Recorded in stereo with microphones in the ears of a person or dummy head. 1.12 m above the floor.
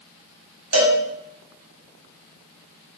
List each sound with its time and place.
0.7 s a cowbell: 70° right (ahead or behind), 1.3 m